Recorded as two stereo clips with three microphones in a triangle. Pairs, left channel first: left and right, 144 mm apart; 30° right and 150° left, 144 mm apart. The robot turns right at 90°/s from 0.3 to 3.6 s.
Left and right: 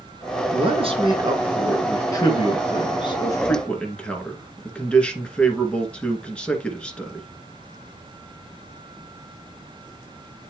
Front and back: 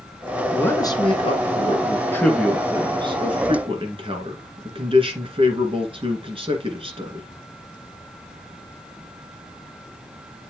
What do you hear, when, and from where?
0.5 s a man speaking: 110° right, 2 m; by 7.3 s 170° left, 2 m